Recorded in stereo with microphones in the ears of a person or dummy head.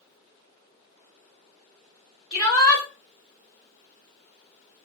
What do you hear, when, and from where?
2.3 s a shout: centre (ahead or behind), 3 m